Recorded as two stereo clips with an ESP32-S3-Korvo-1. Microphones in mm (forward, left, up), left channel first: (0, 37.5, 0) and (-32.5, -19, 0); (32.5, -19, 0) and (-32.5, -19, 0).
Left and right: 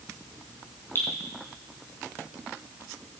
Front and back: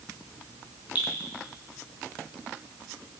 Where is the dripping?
115° left, 4.5 m.